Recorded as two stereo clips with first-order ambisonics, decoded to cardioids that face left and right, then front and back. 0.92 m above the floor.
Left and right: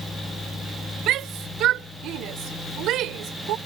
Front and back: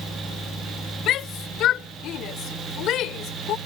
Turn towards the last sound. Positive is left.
turn(degrees=-45)